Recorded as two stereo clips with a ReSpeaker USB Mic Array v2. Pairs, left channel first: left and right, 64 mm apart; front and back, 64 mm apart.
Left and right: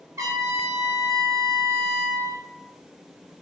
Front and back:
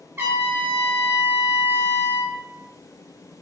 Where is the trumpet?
120° right, 1.1 m.